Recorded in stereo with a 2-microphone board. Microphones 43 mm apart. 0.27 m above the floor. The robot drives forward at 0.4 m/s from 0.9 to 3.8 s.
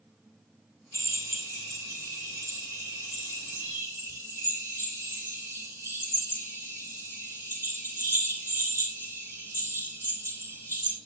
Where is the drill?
70° right (ahead or behind), 6 m; by 11.0 s 60° right (ahead or behind), 6.5 m.